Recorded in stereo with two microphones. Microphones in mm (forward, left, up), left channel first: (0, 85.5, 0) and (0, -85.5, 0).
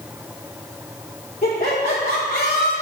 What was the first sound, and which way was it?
Laughter, 45° left (ahead or behind).